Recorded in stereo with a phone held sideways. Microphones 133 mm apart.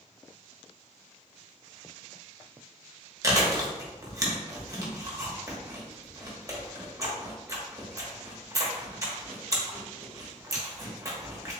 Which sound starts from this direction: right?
Chewing, at 3.2 s.